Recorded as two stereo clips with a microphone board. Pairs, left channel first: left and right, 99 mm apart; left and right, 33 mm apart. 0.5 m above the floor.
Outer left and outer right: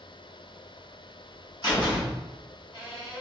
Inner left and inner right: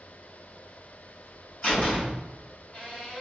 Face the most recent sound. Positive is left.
turn(degrees=45)  # may be behind; listen again after turning